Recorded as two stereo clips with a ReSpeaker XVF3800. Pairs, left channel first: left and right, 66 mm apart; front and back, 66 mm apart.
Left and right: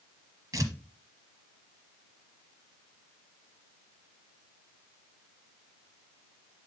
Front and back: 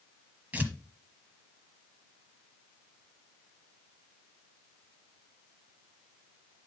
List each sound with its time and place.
0.5 s tearing paper: 115° right, 1.1 m